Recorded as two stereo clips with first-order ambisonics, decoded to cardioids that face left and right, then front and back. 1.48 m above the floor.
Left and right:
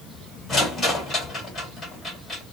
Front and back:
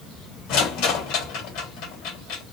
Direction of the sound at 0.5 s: 15° left.